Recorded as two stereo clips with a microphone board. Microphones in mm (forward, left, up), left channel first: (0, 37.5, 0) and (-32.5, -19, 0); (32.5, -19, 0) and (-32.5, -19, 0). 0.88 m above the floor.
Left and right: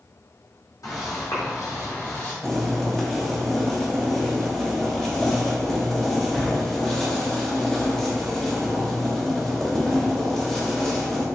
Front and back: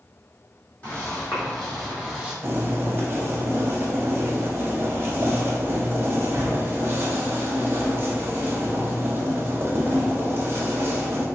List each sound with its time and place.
0.8 s footsteps: 70° left, 1.8 m; by 2.3 s 105° left, 1.2 m
2.4 s boiling: 140° left, 0.8 m